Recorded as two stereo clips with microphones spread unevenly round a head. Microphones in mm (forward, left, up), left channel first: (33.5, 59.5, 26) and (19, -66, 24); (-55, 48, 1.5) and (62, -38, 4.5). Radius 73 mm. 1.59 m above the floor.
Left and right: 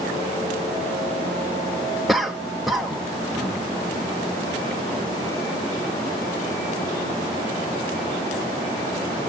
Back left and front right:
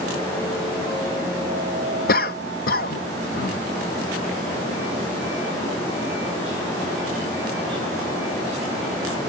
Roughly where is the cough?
Behind.